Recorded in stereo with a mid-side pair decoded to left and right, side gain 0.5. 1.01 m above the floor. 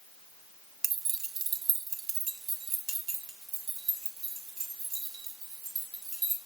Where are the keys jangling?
55° right, 0.6 m; by 6.4 s 70° right, 4 m.